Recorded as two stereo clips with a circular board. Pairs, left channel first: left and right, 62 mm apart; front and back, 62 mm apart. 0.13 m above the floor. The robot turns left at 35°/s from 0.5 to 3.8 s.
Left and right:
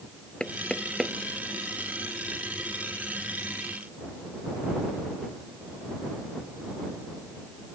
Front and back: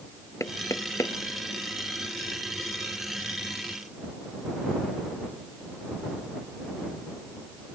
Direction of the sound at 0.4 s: 15° left.